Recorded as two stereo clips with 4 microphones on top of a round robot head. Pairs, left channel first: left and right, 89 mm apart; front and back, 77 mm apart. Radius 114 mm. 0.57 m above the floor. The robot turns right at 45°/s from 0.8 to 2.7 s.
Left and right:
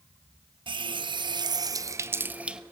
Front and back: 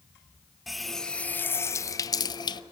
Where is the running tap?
90° right, 0.7 m; by 2.6 s 10° right, 0.7 m.